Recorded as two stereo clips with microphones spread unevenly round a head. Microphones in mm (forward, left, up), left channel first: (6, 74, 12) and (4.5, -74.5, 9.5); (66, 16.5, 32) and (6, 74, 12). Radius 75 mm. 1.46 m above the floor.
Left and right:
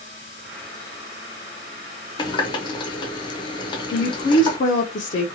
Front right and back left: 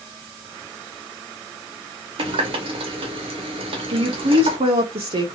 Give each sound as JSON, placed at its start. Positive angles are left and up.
{"t": 2.2, "sound": "a running tap", "azimuth_deg": 140, "distance_m": 0.6}
{"t": 3.9, "sound": "a woman speaking", "azimuth_deg": 130, "distance_m": 0.6}